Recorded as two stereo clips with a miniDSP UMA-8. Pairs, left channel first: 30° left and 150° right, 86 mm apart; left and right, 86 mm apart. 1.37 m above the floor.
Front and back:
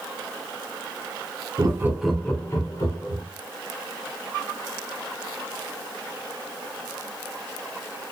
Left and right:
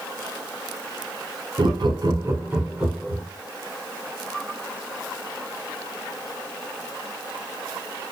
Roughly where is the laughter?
Right.